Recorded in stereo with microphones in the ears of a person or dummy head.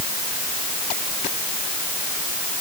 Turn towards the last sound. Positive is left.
No sound to turn to.